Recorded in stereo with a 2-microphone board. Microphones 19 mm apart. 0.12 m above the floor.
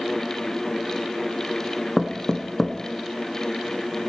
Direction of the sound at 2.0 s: 20° left (ahead or behind).